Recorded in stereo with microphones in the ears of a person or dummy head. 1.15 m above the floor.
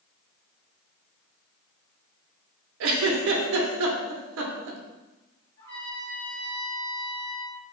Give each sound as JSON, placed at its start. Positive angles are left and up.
{"t": 2.8, "sound": "a giggle", "side_deg": -65, "distance_m": 0.5}
{"t": 5.6, "sound": "a trumpet", "side_deg": 50, "distance_m": 1.8}